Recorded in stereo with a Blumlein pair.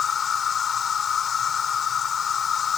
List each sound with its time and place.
0.0 s an insect: 20° left